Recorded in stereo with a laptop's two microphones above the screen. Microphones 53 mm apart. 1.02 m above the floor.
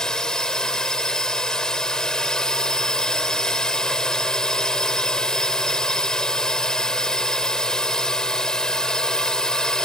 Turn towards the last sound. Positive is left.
turn(degrees=15)  # may be behind; listen again after turning